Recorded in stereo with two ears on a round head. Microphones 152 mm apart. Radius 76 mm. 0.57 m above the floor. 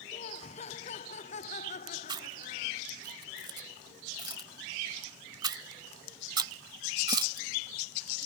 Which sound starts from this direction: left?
Laughter, at 0.1 s.